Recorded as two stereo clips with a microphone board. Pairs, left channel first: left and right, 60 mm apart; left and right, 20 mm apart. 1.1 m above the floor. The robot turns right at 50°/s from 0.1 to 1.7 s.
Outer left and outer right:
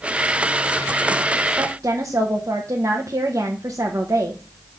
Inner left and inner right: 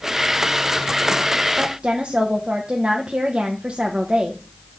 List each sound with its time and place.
1.6 s a woman speaking: 55° right (ahead or behind), 1.0 m; by 4.4 s 60° right (ahead or behind), 1.0 m